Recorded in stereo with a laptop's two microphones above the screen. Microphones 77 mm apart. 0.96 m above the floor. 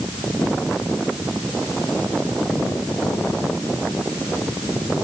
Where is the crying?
No crying in this recording.